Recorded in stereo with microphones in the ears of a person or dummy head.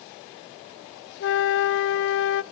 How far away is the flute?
About 0.5 m.